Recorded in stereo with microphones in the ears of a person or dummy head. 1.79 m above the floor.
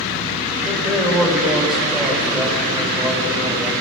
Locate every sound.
0.7 s a man speaking: centre (ahead or behind), 6.5 m